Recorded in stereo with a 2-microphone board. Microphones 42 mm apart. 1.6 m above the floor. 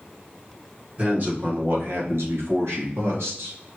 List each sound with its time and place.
1.0 s a man speaking: 35° right (ahead or behind), 1.5 m; by 3.6 s 70° right (ahead or behind), 2 m